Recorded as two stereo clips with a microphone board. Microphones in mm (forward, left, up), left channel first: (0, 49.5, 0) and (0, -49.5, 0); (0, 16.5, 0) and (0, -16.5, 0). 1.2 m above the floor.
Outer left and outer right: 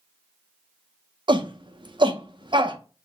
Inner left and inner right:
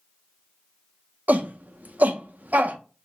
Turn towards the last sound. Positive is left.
turn(degrees=-50)  # may be behind; listen again after turning